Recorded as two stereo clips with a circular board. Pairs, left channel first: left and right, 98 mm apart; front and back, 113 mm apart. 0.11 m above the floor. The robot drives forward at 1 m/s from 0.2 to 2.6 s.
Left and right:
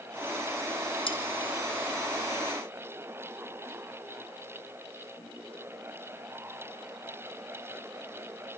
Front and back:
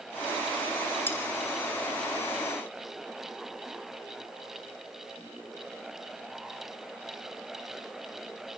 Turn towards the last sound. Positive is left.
turn(degrees=115)